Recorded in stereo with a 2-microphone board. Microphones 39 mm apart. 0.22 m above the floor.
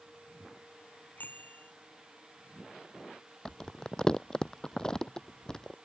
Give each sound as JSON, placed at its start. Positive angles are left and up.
{"t": 1.2, "sound": "a bicycle bell", "side_deg": 50}
{"t": 3.5, "sound": "crumpling", "side_deg": 15}